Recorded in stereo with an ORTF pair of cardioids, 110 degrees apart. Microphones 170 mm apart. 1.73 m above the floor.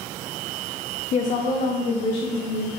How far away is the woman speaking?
About 0.5 m.